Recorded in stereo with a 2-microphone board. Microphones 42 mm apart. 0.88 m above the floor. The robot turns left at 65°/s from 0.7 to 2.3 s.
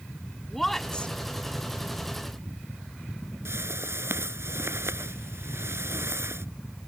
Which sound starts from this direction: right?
A whoosh, at 3.5 s.